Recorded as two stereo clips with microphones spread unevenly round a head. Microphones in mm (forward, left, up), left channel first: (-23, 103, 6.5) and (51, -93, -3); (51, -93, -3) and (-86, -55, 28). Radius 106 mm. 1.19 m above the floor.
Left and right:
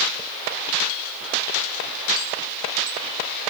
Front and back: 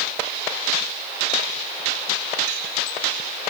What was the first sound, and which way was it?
Only background noise.